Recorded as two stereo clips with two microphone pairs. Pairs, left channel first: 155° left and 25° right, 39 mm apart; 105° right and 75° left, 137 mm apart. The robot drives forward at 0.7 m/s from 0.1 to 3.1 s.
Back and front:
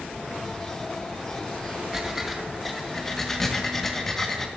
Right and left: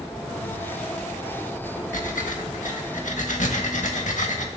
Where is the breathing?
95° right, 1.6 m; by 4.5 s 120° right, 1.8 m.